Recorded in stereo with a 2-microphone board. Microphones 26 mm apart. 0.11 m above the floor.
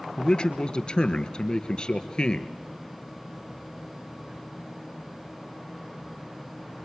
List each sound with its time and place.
0.2 s a man speaking: 35° left (ahead or behind), 1.6 m